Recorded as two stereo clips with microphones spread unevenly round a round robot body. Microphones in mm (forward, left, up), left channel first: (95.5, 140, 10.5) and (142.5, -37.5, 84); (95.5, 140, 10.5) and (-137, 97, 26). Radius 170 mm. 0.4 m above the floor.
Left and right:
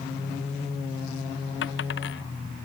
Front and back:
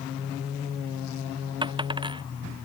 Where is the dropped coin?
120° left.